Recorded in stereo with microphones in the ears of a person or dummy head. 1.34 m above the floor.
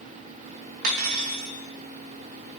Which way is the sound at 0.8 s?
55° right (ahead or behind).